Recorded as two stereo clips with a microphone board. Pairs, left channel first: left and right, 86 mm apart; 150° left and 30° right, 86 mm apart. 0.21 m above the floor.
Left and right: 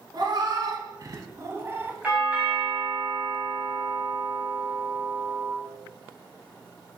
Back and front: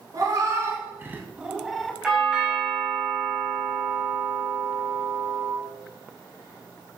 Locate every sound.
0.1 s a cat meowing: 70° right, 1.2 m; by 1.9 s 130° right, 0.8 m
2.0 s a doorbell: 85° right, 1.8 m